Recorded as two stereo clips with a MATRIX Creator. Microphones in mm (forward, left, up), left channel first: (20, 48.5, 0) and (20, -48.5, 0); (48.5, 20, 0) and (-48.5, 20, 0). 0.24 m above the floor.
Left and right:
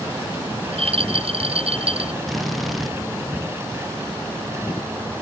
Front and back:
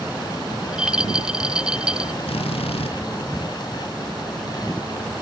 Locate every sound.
0.6 s a rattle: 100° right
2.3 s a drill: straight ahead